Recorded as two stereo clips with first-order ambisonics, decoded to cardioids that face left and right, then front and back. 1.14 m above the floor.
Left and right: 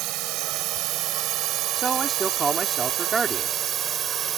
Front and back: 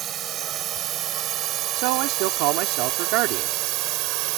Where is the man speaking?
165° right.